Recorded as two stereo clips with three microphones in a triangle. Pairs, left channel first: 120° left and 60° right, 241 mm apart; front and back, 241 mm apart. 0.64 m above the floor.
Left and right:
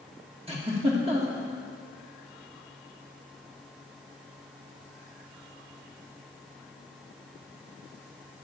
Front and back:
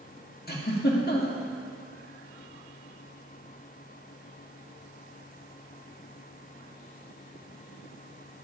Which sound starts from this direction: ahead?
A giggle, at 0.5 s.